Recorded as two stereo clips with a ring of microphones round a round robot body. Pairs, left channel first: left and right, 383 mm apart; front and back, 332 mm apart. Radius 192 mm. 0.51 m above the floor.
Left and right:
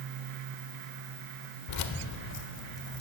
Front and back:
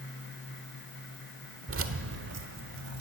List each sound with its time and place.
1.7 s keys jangling: 130° left, 1.3 m; by 3.0 s 145° left, 2.5 m